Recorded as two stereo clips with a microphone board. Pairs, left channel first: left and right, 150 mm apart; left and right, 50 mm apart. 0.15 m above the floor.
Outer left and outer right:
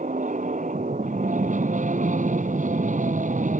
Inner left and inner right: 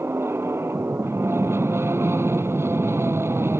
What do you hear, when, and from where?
0.0 s an aircraft: 60° right (ahead or behind)